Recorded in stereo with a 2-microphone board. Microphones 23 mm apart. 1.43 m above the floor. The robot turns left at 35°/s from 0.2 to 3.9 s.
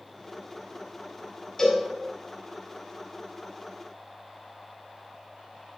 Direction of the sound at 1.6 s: 25° left (ahead or behind).